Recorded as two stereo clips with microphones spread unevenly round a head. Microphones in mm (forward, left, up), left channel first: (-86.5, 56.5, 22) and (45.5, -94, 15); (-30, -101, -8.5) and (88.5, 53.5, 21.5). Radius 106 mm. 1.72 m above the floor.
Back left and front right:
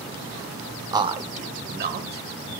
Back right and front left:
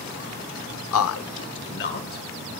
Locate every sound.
0.9 s a man speaking: 125° right, 0.6 m; by 2.6 s 85° right, 1.5 m